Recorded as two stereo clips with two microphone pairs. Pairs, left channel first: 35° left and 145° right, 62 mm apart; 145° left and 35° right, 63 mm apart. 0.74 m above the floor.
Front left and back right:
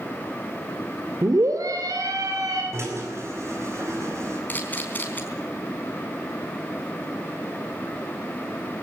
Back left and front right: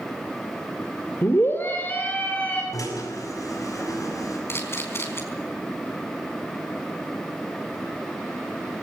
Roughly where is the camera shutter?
Left.